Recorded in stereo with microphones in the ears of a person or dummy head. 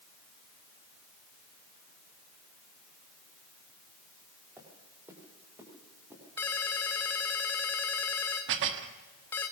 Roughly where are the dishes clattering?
Right.